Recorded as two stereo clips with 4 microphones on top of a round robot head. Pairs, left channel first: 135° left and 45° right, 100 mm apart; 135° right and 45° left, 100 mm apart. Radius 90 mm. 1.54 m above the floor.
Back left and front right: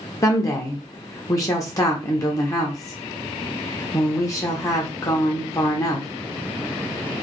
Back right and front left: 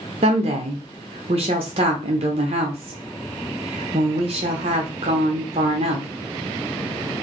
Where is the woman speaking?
75° left, 0.7 m.